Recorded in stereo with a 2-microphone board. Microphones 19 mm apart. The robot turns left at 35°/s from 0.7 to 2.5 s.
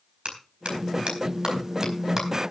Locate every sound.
0.2 s a clap: 75° right (ahead or behind), 4.5 m; by 2.3 s 20° right (ahead or behind), 4.5 m